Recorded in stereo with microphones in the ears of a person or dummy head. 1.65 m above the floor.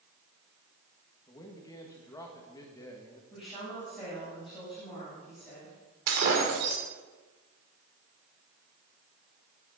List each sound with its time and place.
1.3 s a man speaking: 20° left (ahead or behind), 1.8 m
3.3 s a woman speaking: centre (ahead or behind), 8 m
6.1 s breaking glass: 55° right (ahead or behind), 2.5 m